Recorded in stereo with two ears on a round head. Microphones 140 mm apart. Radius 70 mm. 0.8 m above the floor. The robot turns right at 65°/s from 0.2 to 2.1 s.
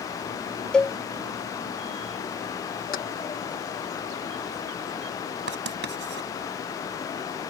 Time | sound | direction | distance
0.7 | a cowbell | 5° left (ahead or behind) | ?
2.9 | keys jangling | 60° left (ahead or behind) | ?
5.5 | writing | 85° right | ?